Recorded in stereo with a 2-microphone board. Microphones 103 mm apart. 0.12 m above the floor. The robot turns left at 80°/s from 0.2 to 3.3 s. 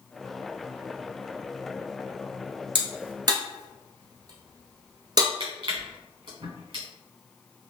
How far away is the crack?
About 0.9 m.